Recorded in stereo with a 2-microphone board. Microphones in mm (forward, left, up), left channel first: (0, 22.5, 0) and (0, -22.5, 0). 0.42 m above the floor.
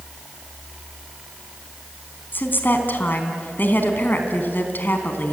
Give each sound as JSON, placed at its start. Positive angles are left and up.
{"t": 2.3, "sound": "a woman speaking", "side_deg": 50, "distance_m": 3.5}